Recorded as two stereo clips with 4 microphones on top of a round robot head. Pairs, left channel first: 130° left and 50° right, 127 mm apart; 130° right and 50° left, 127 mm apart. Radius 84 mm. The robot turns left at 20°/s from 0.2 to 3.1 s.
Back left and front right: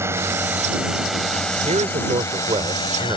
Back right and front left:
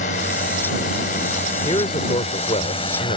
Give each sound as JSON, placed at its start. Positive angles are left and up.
{"t": 0.0, "sound": "a drone", "azimuth_deg": -120}
{"t": 1.6, "sound": "a man speaking", "azimuth_deg": -80}